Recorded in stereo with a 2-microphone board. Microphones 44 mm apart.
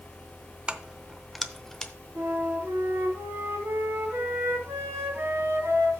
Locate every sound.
0.7 s keys jangling: 25° right (ahead or behind), 0.6 m; by 1.9 s 15° left (ahead or behind), 0.8 m
2.1 s a flute: 70° right (ahead or behind), 4 m